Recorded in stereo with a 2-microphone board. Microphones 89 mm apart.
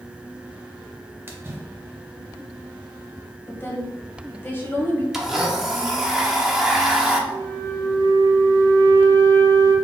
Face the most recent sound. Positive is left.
turn(degrees=25)  # may be behind; listen again after turning